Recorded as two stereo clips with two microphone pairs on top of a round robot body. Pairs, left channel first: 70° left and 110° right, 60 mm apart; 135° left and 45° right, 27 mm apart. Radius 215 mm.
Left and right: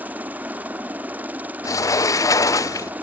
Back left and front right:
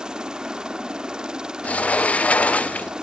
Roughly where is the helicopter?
Right.